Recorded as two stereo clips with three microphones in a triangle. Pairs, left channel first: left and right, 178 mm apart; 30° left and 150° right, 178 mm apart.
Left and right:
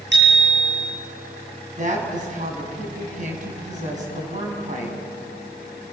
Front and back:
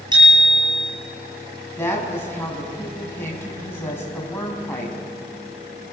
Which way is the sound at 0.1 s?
85° right.